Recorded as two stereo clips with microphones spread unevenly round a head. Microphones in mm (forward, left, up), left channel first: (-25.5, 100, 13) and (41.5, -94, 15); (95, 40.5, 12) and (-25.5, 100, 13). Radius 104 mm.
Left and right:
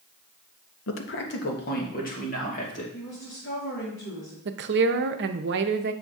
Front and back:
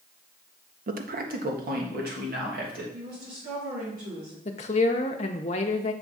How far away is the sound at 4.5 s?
About 0.6 m.